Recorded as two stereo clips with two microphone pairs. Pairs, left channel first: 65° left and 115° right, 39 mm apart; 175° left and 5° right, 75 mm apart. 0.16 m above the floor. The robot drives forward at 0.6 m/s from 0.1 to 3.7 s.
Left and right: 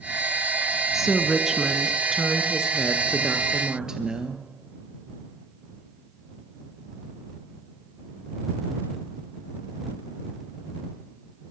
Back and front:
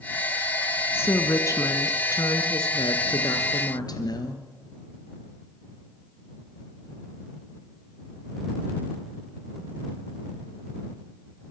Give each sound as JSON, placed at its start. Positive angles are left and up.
{"t": 0.9, "sound": "a woman speaking", "azimuth_deg": 175, "distance_m": 1.4}